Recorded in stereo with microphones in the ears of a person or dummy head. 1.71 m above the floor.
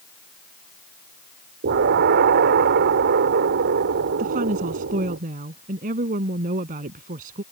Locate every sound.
1.6 s an explosion: 55° right (ahead or behind)
4.2 s a woman speaking: 50° right (ahead or behind)